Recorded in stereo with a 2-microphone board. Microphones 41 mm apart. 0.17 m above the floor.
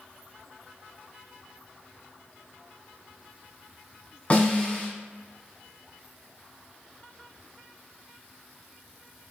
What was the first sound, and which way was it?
A snare drum, 35° left (ahead or behind).